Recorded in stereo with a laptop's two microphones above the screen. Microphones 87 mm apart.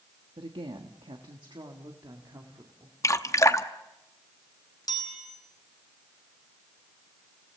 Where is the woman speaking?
85° right, 1.4 m; by 3.0 s 40° right (ahead or behind), 2 m.